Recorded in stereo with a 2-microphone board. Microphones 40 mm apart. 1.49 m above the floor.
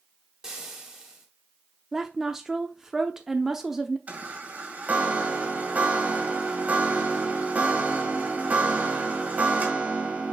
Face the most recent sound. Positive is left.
turn(degrees=-40)  # may be behind; listen again after turning